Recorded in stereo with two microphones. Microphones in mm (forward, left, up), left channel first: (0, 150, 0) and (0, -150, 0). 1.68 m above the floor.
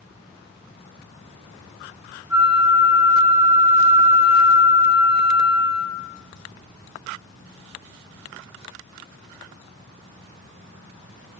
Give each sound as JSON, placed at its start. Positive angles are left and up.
{"t": 2.3, "sound": "a flute", "side_deg": -5, "distance_m": 0.7}